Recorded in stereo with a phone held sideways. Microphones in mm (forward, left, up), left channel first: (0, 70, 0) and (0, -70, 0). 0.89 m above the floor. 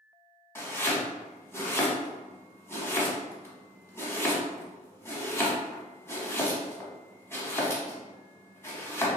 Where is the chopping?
20° left (ahead or behind), 0.9 m.